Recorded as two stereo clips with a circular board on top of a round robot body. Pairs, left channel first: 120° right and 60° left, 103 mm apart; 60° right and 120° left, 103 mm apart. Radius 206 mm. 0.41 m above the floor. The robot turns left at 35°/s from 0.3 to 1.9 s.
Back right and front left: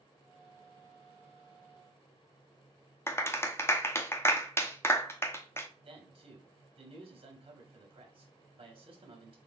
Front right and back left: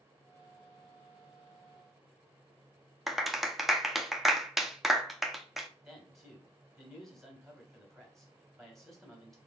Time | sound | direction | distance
3.1 | a clap | 155° right | 0.9 m
5.8 | a man speaking | 30° left | 2 m